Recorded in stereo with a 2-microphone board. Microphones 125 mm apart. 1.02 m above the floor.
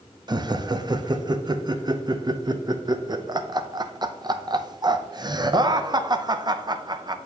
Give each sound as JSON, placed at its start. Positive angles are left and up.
{"t": 0.3, "sound": "laughter", "side_deg": -35, "distance_m": 0.5}